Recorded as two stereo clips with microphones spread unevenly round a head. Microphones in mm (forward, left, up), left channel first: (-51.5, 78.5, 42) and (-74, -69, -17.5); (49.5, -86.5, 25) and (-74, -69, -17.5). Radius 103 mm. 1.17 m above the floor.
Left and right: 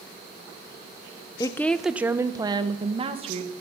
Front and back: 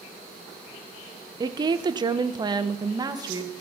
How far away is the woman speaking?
About 0.7 m.